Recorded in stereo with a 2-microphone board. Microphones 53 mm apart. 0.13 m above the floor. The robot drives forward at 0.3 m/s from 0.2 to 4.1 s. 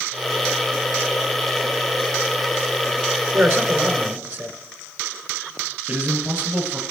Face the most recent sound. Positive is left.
turn(degrees=-25)  # may be behind; listen again after turning